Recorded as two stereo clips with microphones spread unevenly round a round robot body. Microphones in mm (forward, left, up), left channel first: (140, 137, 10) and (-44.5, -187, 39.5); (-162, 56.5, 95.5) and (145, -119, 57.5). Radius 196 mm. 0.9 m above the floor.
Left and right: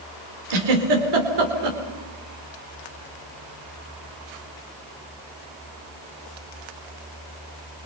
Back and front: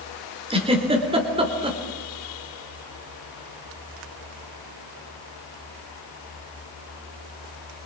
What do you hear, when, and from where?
0.5 s a giggle: 105° right, 4 m